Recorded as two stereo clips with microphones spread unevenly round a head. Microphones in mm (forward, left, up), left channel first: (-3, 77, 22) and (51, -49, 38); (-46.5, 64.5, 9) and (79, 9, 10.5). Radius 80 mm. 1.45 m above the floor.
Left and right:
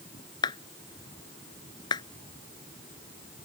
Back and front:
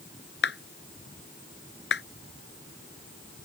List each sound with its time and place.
0.4 s a clap: straight behind